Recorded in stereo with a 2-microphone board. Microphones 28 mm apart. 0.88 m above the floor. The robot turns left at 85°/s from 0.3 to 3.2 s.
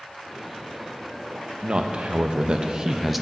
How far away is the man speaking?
About 0.6 m.